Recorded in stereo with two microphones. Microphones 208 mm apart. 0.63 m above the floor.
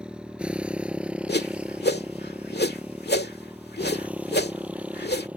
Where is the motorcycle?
5° right (ahead or behind).